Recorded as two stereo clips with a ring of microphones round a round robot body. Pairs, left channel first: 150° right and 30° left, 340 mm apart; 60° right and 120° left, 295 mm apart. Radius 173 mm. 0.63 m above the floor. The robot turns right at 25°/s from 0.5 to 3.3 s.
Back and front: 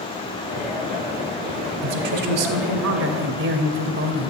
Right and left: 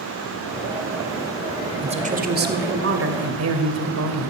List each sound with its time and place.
1.8 s a woman speaking: 50° left, 2.5 m; by 4.3 s 85° left, 2.5 m